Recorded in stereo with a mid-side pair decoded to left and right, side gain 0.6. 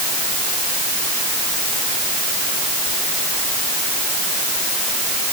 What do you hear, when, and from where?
Only background noise.